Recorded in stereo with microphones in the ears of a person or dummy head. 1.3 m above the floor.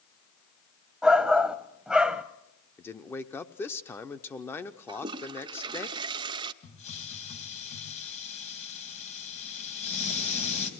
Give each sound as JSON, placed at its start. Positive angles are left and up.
{"t": 1.0, "sound": "a shout", "side_deg": 0, "distance_m": 0.7}
{"t": 2.8, "sound": "a man speaking", "side_deg": 15, "distance_m": 0.6}
{"t": 4.9, "sound": "a toilet flushing", "side_deg": -25, "distance_m": 0.6}
{"t": 6.6, "sound": "a hiss", "side_deg": 40, "distance_m": 2.5}